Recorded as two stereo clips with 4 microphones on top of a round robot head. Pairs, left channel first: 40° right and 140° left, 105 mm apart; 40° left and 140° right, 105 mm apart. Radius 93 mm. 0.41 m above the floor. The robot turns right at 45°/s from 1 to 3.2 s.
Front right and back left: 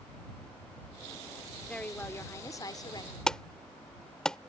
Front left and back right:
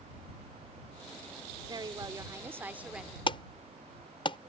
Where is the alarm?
40° left.